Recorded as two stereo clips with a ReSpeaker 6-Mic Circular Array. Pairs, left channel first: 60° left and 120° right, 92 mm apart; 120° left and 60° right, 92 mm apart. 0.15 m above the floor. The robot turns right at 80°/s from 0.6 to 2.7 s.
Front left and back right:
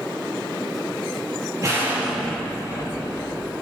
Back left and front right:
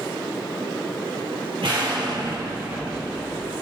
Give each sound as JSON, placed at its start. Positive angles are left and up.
{"t": 1.6, "sound": "an explosion", "azimuth_deg": -75, "distance_m": 4.5}